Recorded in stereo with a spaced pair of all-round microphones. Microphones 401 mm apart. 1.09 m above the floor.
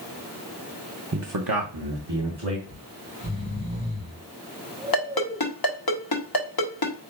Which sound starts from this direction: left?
A ringtone, at 4.9 s.